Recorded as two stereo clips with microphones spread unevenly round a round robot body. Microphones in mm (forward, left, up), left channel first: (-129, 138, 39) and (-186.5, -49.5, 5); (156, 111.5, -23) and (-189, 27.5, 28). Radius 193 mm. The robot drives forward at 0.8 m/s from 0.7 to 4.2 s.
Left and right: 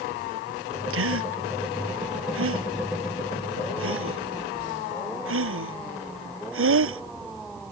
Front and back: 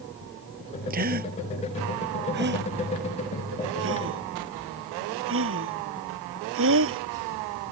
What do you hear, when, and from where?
0.9 s a gasp: 95° right; by 7.0 s 105° right